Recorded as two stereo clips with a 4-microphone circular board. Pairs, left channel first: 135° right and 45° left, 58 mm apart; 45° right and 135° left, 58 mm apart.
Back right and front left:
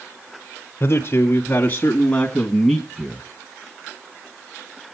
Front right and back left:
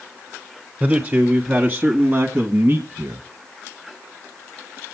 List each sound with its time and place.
0.8 s a man speaking: 165° right, 1.9 m; by 3.3 s 115° left, 1.6 m